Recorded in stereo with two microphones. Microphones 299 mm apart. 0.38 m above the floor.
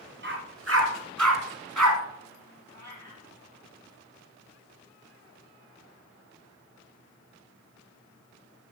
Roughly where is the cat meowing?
Right.